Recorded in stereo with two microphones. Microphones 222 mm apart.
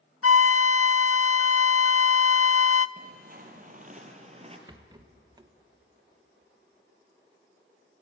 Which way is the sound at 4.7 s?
20° right (ahead or behind).